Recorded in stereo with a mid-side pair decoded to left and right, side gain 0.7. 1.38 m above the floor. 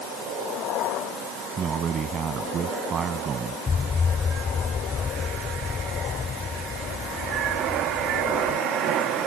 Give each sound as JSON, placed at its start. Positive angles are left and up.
{"t": 1.6, "sound": "a man speaking", "azimuth_deg": -35}
{"t": 3.7, "sound": "an explosion", "azimuth_deg": 25}